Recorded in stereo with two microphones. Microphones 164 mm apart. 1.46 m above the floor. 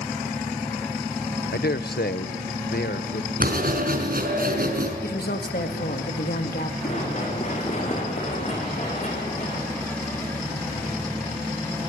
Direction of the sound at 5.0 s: 75° left (ahead or behind).